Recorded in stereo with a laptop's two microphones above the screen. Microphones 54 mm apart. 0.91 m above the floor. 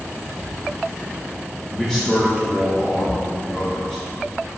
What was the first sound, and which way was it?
A man speaking, 10° left (ahead or behind).